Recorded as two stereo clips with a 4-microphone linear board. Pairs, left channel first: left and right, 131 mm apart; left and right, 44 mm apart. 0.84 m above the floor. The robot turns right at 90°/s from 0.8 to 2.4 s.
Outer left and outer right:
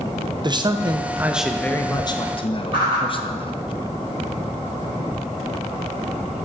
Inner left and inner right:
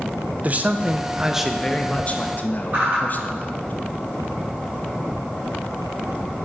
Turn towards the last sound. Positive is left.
turn(degrees=-45)  # may be behind; listen again after turning